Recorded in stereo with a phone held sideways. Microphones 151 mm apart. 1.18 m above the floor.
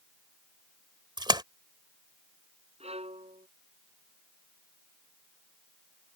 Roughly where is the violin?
Right.